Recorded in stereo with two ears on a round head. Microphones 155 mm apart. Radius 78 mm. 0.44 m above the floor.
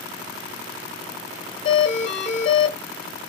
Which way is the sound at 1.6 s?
25° left (ahead or behind).